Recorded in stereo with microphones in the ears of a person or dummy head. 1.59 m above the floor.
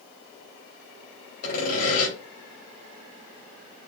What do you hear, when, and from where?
1.4 s sawing: 55° left (ahead or behind), 3.5 m